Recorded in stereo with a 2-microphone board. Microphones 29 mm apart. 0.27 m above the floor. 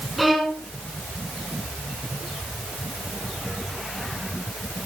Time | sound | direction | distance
0.2 | a violin | 5° right (ahead or behind) | 3 m